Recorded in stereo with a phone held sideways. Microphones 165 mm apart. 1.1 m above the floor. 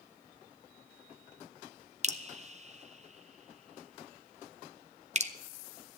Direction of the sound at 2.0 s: 45° right (ahead or behind).